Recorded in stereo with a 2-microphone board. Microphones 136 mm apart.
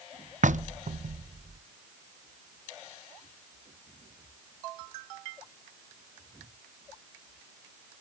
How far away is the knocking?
About 0.5 m.